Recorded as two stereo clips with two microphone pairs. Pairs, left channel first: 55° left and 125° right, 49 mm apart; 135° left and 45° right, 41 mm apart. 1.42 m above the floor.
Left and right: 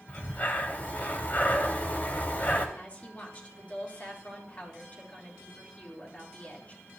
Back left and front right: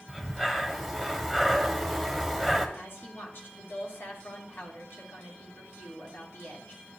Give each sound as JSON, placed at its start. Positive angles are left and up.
{"t": 0.1, "sound": "breathing", "azimuth_deg": 55, "distance_m": 1.5}
{"t": 2.8, "sound": "a woman speaking", "azimuth_deg": 120, "distance_m": 3.5}